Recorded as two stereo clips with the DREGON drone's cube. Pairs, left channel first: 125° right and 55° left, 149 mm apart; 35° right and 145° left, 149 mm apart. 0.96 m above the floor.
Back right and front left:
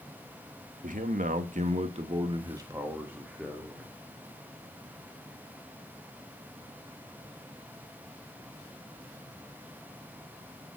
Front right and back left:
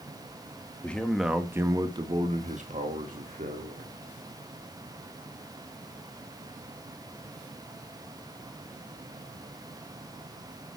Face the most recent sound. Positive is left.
turn(degrees=145)